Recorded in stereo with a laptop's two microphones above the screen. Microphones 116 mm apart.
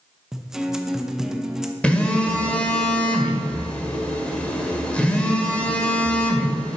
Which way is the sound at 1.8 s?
10° left (ahead or behind).